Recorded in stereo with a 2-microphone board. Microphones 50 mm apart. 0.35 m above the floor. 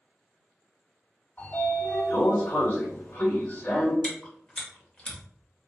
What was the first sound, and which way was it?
A sliding door, 45° left (ahead or behind).